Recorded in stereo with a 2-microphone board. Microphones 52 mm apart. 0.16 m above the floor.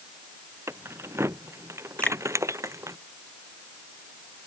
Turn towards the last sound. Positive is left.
turn(degrees=25)  # may be behind; listen again after turning